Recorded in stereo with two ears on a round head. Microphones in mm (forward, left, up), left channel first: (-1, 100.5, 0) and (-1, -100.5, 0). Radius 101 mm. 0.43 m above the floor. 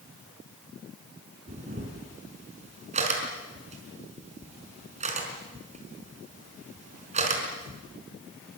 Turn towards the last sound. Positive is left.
turn(degrees=-35)  # may be behind; listen again after turning